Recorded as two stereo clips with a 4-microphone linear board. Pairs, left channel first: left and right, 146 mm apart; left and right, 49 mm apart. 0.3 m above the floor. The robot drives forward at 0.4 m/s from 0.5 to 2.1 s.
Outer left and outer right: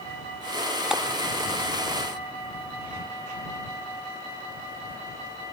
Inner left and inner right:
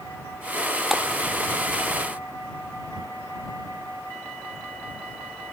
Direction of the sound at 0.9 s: 5° right (ahead or behind).